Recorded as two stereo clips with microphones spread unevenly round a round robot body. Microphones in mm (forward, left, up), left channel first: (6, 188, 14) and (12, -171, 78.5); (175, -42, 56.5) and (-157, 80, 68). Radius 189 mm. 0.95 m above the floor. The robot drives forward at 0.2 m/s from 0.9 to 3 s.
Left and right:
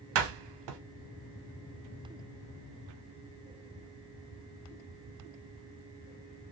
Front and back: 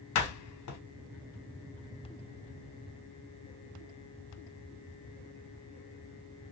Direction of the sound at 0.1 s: 60° right.